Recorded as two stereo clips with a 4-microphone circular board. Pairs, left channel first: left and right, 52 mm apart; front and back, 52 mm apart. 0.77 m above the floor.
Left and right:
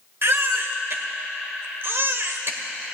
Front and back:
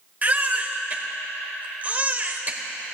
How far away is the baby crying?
About 1.1 m.